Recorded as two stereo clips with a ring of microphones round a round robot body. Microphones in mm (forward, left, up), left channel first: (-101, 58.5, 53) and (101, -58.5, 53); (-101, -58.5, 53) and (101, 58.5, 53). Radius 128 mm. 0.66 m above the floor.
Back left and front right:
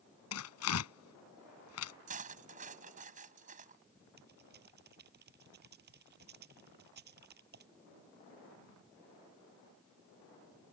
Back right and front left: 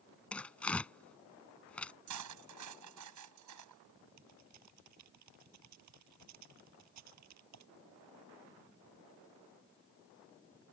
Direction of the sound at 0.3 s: 125° left.